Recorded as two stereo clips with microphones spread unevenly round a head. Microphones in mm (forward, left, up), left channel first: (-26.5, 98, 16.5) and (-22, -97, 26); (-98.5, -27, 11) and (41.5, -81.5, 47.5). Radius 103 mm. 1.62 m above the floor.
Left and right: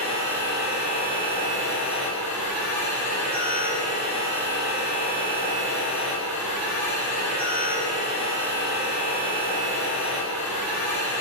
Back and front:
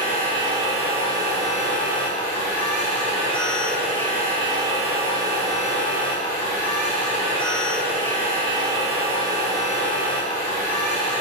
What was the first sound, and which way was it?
A machine running, 25° left.